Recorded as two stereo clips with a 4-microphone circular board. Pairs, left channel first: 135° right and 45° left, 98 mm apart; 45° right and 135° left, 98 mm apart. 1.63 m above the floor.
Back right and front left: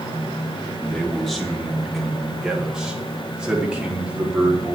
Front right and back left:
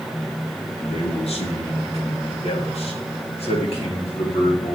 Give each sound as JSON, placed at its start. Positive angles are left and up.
{"t": 0.8, "sound": "a man speaking", "azimuth_deg": -55, "distance_m": 3.0}